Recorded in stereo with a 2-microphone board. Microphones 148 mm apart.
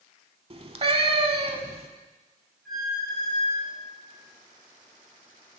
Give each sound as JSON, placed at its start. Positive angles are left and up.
{"t": 0.5, "sound": "a cat meowing", "side_deg": -45, "distance_m": 0.9}
{"t": 2.6, "sound": "a squeak", "side_deg": 0, "distance_m": 4.5}